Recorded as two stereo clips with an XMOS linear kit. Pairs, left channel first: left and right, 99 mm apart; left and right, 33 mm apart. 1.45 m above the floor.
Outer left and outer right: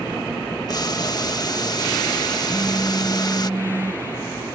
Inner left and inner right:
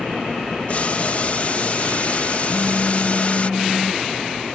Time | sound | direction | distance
0.7 | boiling | 40° left (ahead or behind) | ?
2.5 | a phone buzzing | 20° right (ahead or behind) | ?